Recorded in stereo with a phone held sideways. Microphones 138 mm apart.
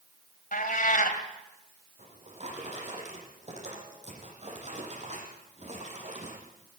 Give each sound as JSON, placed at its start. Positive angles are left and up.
{"t": 0.5, "sound": "a cat meowing", "side_deg": 80, "distance_m": 3.0}
{"t": 2.0, "sound": "a drawer", "side_deg": -55, "distance_m": 8.0}